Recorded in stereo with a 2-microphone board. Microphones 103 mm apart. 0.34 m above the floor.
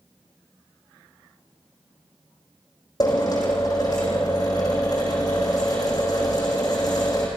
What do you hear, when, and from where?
3.0 s a drill: 40° left (ahead or behind), 6.5 m